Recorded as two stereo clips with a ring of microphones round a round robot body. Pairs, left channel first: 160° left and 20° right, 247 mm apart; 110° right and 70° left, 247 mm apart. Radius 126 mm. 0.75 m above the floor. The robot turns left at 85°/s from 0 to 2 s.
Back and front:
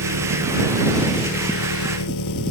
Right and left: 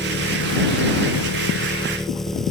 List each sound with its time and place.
0.0 s an engine running: 30° right; by 2.5 s 160° left